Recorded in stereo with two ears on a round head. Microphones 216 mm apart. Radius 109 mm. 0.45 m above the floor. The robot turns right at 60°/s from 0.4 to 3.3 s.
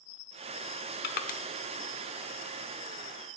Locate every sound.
1.0 s crushing: 45° left (ahead or behind), 0.7 m; by 1.4 s 30° left (ahead or behind), 0.7 m